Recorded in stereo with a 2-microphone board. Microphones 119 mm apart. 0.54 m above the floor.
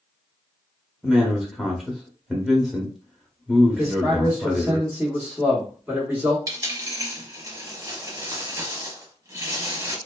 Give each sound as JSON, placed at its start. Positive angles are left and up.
{"t": 1.0, "sound": "a man speaking", "side_deg": 0, "distance_m": 0.6}
{"t": 3.8, "sound": "a man speaking", "side_deg": -15, "distance_m": 1.0}
{"t": 6.5, "sound": "a dropped coin", "side_deg": -30, "distance_m": 0.7}